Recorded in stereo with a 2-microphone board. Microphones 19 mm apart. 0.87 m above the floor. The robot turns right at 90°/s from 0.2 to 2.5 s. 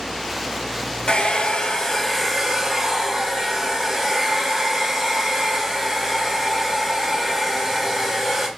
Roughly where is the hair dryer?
Left.